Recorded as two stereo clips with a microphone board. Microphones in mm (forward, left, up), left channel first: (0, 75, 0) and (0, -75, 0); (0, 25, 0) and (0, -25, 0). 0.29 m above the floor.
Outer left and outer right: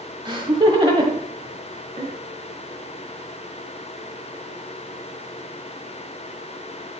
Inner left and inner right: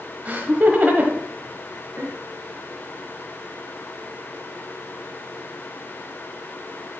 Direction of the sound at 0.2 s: 35° right (ahead or behind).